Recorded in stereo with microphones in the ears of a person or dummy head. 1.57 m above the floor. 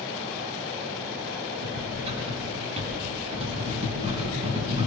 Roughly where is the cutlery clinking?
Right.